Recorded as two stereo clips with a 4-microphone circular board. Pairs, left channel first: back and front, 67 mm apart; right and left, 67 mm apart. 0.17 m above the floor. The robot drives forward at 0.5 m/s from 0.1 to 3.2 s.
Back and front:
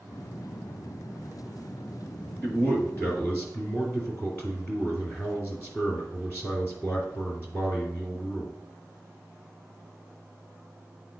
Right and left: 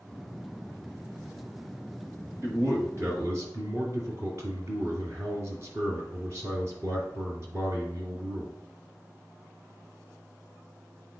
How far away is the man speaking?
About 2 m.